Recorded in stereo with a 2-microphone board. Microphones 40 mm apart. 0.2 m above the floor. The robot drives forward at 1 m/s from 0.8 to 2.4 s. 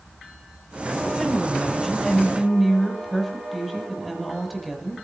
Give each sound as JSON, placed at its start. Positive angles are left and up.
{"t": 1.1, "sound": "a woman speaking", "side_deg": 0, "distance_m": 5.5}